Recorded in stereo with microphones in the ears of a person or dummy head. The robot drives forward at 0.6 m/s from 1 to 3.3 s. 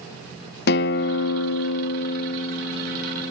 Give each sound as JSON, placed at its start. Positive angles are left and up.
{"t": 0.7, "sound": "a guitar", "side_deg": 65, "distance_m": 0.6}